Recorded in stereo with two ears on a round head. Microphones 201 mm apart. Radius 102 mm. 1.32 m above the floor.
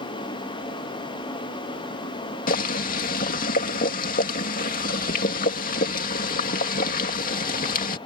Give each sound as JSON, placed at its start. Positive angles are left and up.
{"t": 2.5, "sound": "boiling", "side_deg": 40}